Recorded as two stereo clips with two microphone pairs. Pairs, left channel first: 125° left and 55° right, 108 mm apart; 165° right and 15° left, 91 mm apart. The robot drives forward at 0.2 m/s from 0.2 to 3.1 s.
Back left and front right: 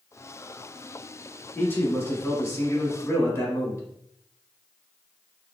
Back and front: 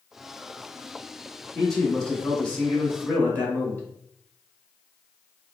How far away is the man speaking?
About 1.1 m.